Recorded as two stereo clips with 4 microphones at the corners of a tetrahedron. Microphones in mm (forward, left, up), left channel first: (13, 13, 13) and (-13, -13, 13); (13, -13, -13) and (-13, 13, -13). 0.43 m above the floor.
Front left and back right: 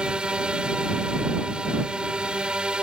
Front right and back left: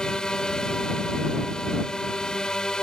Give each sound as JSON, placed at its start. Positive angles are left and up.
{"t": 0.0, "sound": "a drone", "azimuth_deg": -95}